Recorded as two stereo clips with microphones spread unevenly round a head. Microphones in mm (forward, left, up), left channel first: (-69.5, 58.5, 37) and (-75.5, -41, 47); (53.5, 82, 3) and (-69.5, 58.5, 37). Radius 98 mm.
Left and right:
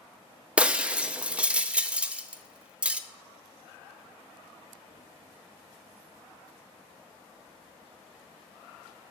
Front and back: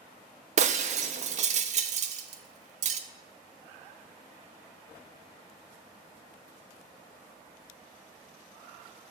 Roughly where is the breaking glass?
Behind.